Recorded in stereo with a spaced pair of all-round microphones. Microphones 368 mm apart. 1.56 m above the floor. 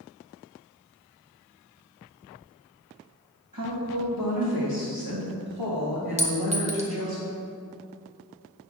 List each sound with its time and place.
3.5 s a woman speaking: 65° right (ahead or behind), 2.5 m; by 7.2 s 70° right (ahead or behind), 2.5 m
6.2 s a clink: 20° right (ahead or behind), 0.9 m